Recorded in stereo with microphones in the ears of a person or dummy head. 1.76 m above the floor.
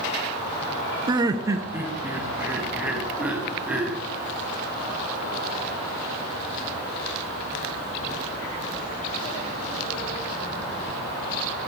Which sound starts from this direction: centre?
Laughter, at 1.1 s.